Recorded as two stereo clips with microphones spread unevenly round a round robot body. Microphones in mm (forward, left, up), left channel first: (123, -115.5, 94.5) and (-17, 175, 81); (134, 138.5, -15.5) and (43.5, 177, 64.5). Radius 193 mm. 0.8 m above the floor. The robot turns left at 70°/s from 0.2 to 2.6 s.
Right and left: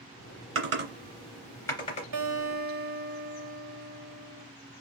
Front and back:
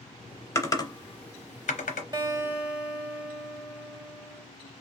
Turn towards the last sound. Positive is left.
turn(degrees=60)